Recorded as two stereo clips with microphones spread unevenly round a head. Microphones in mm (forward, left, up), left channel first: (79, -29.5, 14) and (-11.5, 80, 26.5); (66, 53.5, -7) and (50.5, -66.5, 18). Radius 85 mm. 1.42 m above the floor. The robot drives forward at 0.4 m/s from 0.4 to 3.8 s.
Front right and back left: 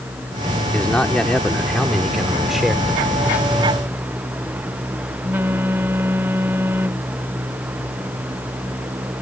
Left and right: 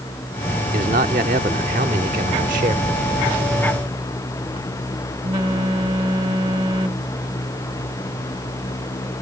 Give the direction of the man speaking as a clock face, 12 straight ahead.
5 o'clock.